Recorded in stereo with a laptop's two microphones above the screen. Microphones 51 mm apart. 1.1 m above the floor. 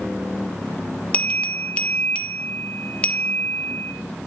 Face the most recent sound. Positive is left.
turn(degrees=25)  # may be behind; listen again after turning